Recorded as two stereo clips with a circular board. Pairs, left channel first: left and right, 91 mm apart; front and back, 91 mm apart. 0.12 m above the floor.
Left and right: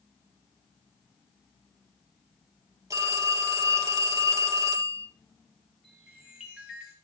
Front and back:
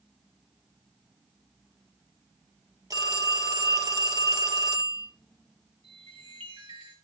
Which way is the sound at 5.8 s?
175° right.